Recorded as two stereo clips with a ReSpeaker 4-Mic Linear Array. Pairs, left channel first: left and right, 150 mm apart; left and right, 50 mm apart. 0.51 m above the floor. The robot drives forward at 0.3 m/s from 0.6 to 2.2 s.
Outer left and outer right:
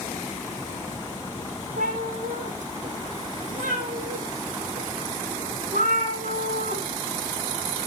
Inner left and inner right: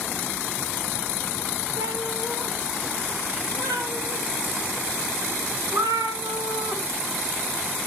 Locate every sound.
1.8 s a cat meowing: 60° right (ahead or behind), 3.5 m; by 6.8 s 55° right (ahead or behind), 3.5 m